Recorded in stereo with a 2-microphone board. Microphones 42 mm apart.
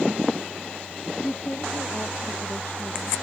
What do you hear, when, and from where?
1.2 s a woman speaking: 50° left (ahead or behind)